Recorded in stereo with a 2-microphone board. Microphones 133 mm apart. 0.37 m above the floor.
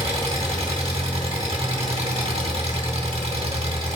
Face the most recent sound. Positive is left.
turn(degrees=-50)  # may be behind; listen again after turning